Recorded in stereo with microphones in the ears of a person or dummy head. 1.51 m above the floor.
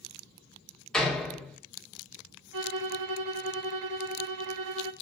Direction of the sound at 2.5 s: 65° right (ahead or behind).